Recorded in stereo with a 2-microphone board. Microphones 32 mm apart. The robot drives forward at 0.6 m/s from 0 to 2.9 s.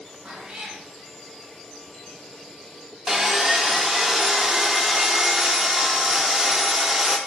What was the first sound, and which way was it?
A cat meowing, 40° right (ahead or behind).